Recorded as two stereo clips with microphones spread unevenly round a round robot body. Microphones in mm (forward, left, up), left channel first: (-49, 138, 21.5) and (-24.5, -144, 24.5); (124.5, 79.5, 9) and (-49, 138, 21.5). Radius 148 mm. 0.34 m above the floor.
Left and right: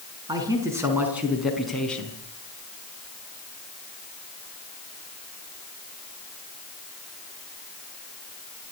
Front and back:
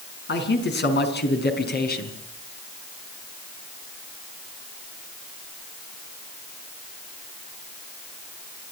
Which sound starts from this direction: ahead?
A man speaking, at 0.3 s.